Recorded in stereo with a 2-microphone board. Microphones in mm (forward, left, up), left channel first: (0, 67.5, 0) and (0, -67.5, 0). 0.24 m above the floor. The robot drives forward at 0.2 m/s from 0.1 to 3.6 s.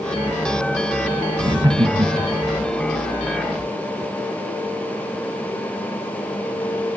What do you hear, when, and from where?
1.4 s laughter: 35° right (ahead or behind), 1.4 m